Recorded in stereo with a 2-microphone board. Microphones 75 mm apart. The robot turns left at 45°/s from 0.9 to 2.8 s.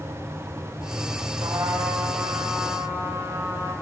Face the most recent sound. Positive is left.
turn(degrees=-160)